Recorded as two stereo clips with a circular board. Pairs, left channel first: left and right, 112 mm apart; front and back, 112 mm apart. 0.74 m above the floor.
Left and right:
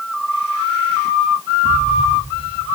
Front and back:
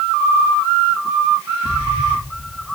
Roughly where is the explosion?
Behind.